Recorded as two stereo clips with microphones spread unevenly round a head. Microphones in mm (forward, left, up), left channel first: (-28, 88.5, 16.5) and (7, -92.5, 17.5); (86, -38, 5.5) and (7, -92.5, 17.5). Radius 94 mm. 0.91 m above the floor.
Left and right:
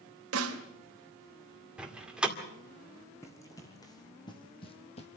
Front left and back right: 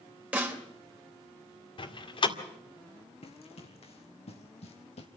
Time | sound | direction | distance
0.3 | a snare drum | 70° right | 3 m
1.8 | a door slam | 5° left | 2 m
3.2 | running footsteps | 25° left | 3 m